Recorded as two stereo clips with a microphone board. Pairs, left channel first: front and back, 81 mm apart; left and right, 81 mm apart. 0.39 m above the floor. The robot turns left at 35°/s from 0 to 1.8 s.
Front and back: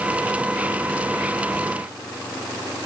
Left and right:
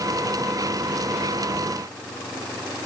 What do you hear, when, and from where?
Only background noise.